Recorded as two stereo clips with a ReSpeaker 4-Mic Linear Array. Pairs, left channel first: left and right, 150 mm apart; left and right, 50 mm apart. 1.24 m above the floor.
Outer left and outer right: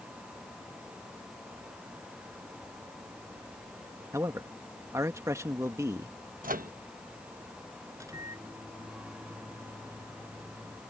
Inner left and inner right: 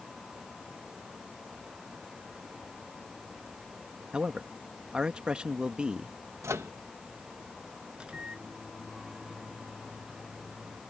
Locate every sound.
4.1 s a man speaking: 20° right (ahead or behind)
6.4 s a microwave: 65° right (ahead or behind)
7.9 s a microwave: 20° right (ahead or behind)